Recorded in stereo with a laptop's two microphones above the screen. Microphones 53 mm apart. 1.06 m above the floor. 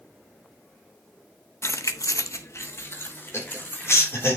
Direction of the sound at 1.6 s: 55° left (ahead or behind).